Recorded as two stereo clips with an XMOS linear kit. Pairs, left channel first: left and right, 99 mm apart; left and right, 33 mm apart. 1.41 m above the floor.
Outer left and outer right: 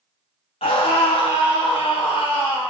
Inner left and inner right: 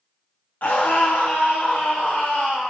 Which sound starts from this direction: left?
A scream, at 0.6 s.